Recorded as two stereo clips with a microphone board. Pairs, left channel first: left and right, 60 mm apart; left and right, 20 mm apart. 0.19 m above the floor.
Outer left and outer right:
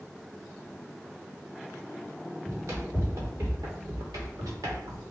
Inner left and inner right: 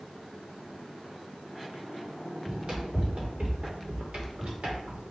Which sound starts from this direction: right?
Running footsteps, at 2.5 s.